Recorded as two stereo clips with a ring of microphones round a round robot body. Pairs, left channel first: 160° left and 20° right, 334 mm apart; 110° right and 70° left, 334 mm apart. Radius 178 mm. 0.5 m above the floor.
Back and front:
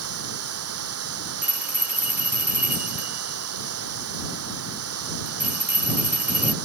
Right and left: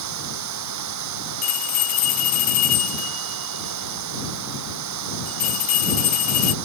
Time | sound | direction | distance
0.0 | running water | 25° left | ?
1.4 | a bell | 110° right | ?